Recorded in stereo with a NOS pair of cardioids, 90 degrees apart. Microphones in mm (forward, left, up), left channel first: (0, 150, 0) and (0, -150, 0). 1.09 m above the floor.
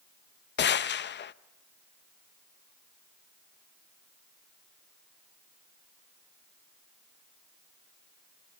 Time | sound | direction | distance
0.6 | a gunshot | 40° left | 0.6 m